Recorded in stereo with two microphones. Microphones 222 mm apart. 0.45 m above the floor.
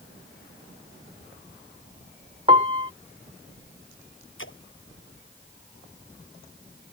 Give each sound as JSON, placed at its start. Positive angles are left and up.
{"t": 2.5, "sound": "a piano", "side_deg": -25}
{"t": 4.4, "sound": "a splash", "side_deg": 65}